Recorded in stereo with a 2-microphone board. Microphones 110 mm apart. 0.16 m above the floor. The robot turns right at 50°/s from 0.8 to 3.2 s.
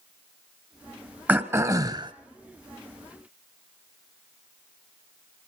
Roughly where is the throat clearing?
Behind.